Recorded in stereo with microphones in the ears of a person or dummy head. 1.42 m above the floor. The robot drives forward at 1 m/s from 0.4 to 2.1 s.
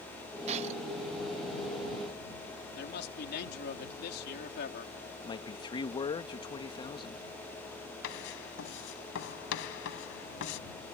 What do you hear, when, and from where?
0.5 s breaking glass: 35° right (ahead or behind)
2.8 s a man speaking: 60° left (ahead or behind)
5.2 s a man speaking: 25° left (ahead or behind)
8.0 s writing: 65° left (ahead or behind)